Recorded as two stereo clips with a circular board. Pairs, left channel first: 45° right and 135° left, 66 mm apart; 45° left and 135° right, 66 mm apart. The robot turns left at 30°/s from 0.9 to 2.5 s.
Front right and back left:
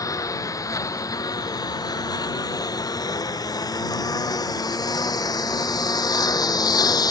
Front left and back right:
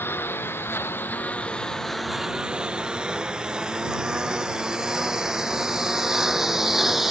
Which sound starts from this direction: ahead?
A lawn mower, at 0.0 s.